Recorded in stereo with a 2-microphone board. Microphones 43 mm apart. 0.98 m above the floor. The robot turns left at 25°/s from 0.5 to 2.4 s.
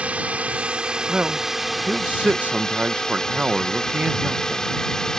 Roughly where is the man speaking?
Ahead right.